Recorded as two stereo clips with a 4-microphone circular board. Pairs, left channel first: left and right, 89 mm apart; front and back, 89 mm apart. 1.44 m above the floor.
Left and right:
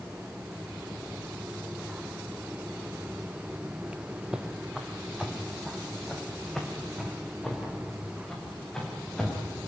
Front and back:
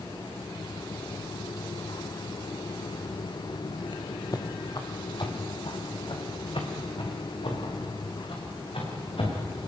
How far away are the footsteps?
About 2 m.